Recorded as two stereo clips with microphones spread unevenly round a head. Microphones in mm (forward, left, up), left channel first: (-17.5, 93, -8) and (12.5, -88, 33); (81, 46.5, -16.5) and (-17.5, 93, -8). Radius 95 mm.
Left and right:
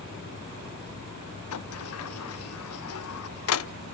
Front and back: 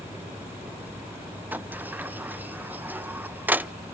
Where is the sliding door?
80° left, 0.7 m.